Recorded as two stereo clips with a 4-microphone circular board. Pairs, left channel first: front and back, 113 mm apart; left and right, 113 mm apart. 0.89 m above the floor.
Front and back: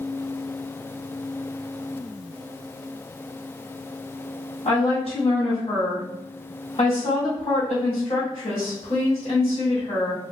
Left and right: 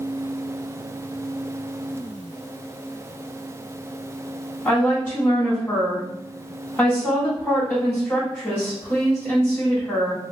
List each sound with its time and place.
4.7 s a woman speaking: 20° left, 1.6 m